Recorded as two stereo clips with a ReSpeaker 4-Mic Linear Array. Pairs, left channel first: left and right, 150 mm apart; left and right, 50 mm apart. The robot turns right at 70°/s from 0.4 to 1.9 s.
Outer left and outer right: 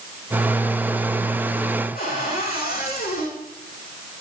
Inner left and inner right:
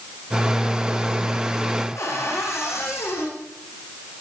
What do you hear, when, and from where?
1.9 s a cupboard door: 85° left, 9.5 m